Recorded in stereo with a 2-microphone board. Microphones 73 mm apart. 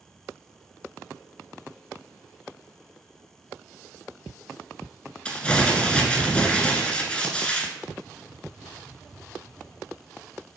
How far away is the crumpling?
About 0.6 m.